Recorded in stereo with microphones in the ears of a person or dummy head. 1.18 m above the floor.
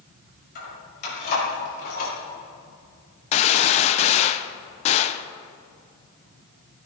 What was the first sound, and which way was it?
Keys jangling, 55° left (ahead or behind).